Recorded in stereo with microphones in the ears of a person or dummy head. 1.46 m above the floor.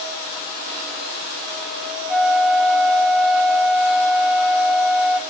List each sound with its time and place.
2.1 s a flute: 5° left (ahead or behind), 0.5 m